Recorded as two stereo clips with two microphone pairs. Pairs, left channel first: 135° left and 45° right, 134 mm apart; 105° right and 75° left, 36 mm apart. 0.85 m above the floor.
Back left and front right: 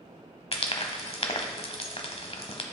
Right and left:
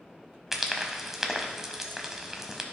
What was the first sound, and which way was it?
Frying, 150° left.